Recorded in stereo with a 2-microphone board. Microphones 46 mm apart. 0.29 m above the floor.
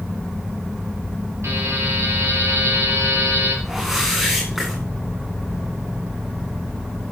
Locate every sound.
1.4 s a buzzer: 80° right, 4.5 m
3.6 s a whoosh: 10° right (ahead or behind), 9.5 m